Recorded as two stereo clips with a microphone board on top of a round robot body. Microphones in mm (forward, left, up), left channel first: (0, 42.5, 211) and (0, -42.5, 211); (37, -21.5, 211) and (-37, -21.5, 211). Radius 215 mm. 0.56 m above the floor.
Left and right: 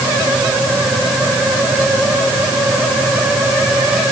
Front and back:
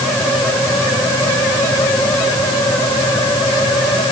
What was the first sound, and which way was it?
Only background noise.